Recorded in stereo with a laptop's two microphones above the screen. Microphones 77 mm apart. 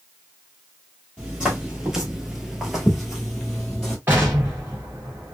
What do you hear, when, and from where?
1.2 s footsteps: 15° right (ahead or behind), 1.1 m; by 4.0 s 10° left (ahead or behind), 1.3 m
4.1 s an explosion: 30° right (ahead or behind), 1.2 m